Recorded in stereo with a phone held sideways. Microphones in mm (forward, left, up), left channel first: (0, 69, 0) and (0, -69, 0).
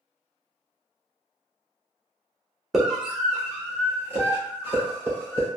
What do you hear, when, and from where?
2.7 s a scream: centre (ahead or behind), 0.8 m; by 5.5 s 20° right (ahead or behind), 2.5 m